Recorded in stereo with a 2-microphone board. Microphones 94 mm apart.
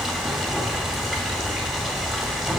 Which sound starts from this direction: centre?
Running water, at 0.0 s.